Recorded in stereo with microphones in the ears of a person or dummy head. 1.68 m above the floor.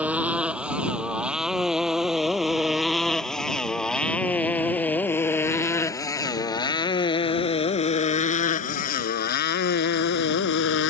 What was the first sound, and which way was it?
A motorcycle, 10° right (ahead or behind).